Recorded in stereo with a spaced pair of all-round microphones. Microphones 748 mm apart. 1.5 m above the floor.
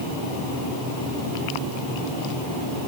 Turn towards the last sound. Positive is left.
No sound to turn to.